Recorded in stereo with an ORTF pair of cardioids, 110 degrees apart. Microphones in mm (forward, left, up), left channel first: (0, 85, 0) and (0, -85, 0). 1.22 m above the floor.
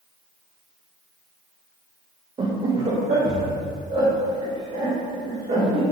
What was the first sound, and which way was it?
Laughter, 30° right.